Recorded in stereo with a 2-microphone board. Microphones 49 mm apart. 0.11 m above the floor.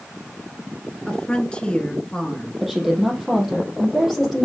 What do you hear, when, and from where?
1.1 s a woman speaking: 20° left (ahead or behind), 1.2 m
2.6 s a woman speaking: 5° right (ahead or behind), 4 m